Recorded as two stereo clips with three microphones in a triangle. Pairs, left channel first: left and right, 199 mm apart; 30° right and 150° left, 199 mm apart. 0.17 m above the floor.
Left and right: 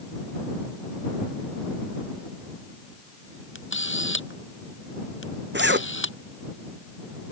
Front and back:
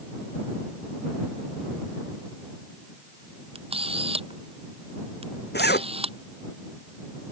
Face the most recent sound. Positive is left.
turn(degrees=-65)